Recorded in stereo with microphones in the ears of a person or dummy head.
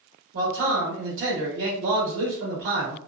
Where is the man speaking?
75° right (ahead or behind), 1.2 m.